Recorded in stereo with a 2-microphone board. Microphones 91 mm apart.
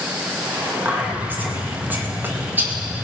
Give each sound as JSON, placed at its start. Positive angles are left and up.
{"t": 0.8, "sound": "whispering", "side_deg": -20, "distance_m": 2.5}